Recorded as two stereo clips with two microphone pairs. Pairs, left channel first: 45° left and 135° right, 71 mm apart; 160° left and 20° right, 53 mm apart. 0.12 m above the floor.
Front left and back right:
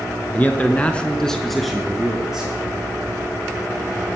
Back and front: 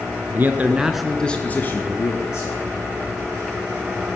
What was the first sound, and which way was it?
A man speaking, 10° right.